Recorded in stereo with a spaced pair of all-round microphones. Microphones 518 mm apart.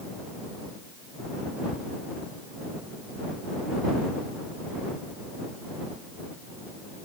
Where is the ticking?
10° left (ahead or behind).